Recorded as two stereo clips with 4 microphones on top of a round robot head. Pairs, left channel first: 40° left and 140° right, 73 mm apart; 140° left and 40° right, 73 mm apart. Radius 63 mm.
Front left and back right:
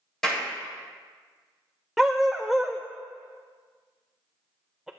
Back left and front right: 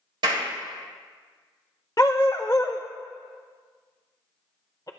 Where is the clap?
40° right, 4 m.